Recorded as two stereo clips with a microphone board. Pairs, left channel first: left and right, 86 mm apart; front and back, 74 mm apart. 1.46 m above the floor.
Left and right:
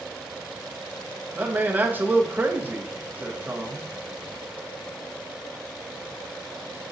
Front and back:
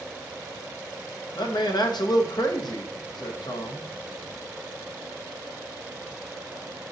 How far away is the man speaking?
About 0.7 m.